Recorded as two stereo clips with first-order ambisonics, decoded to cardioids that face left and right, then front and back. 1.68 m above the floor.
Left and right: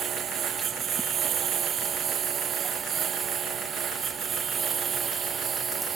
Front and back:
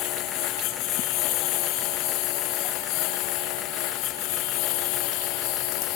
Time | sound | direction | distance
0.0 | a lawn mower | 30° right | ?